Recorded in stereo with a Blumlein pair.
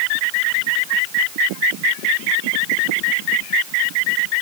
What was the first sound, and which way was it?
Only background noise.